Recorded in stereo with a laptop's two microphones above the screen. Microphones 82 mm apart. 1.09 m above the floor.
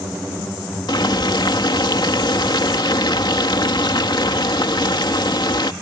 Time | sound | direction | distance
0.9 | boiling | 70° left (ahead or behind) | ?